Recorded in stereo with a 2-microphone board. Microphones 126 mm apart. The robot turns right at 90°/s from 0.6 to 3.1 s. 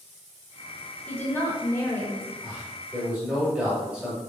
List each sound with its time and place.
1.1 s a woman speaking: 10° left (ahead or behind), 0.9 m
2.4 s a man speaking: 80° right, 1.3 m; by 4.2 s 20° right, 1.3 m